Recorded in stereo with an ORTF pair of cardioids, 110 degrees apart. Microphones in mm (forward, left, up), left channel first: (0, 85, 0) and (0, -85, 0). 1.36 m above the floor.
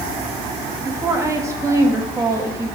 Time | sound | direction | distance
0.8 | a woman speaking | 15° right | 2.5 m